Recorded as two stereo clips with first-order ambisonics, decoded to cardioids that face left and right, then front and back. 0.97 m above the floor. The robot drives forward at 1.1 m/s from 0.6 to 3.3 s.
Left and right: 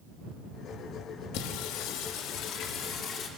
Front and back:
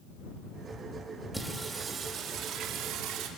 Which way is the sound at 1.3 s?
95° left.